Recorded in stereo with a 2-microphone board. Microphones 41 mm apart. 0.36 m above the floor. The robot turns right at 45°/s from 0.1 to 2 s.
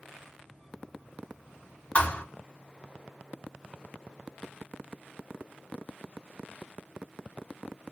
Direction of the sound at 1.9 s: 30° left (ahead or behind).